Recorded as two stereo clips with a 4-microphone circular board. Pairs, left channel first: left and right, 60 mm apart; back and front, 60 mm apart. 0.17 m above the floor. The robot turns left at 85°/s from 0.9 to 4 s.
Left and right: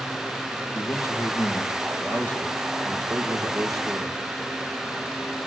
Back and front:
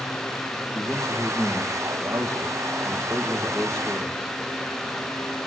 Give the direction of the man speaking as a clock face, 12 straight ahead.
7 o'clock.